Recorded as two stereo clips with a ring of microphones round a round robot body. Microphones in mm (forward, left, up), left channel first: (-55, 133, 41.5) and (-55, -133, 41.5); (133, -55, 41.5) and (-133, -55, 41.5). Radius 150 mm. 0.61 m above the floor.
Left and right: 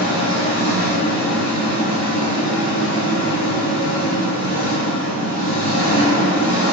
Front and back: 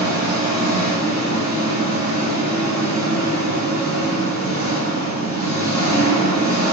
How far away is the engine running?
About 1.8 m.